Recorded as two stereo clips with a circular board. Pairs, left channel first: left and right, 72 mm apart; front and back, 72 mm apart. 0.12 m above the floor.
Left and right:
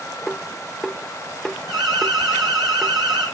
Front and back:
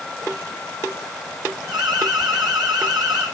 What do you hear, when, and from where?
1.7 s an alarm: straight behind, 5 m